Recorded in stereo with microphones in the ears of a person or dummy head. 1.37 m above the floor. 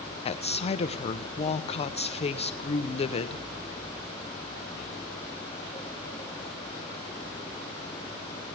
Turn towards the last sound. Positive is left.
turn(degrees=35)  # may be behind; listen again after turning